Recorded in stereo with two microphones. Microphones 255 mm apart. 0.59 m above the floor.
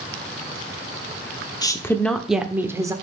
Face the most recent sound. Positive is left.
turn(degrees=-15)  # may be behind; listen again after turning